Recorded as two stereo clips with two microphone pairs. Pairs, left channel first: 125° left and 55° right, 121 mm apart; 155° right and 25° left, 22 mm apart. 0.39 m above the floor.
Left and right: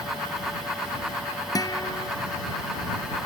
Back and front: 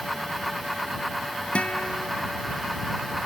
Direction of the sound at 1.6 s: Straight behind.